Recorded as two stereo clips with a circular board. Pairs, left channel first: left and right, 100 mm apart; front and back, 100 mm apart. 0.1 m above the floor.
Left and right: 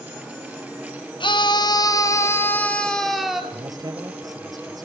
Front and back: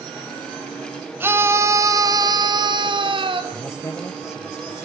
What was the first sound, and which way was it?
A scream, 115° left.